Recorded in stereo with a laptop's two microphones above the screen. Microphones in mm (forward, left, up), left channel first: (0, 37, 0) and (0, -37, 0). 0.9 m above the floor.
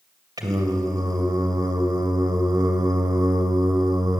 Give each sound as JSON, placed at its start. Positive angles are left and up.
{"t": 0.4, "sound": "singing", "side_deg": -65, "distance_m": 1.9}